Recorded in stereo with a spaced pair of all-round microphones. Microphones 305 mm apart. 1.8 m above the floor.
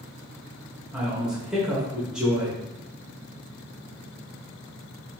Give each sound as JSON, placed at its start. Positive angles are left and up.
{"t": 0.9, "sound": "a man speaking", "side_deg": -5, "distance_m": 1.1}